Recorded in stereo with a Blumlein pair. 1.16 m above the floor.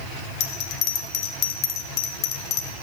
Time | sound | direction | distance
0.4 | a bell | 35° left | 1.1 m